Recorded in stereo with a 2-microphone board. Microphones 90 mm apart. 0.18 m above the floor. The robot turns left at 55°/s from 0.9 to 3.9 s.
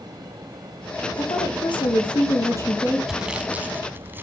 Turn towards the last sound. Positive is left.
turn(degrees=-25)  # may be behind; listen again after turning